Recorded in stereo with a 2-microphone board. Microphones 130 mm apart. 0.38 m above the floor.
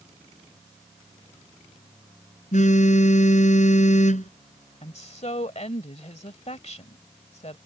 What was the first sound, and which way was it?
A phone buzzing, 70° left (ahead or behind).